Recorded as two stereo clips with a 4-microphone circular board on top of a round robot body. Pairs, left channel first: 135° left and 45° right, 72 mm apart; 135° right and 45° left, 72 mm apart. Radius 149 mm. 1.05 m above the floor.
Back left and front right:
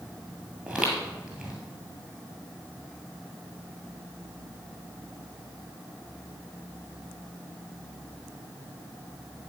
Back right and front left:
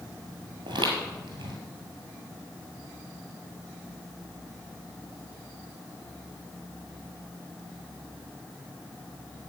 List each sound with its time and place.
0.7 s footsteps: 35° left, 1.6 m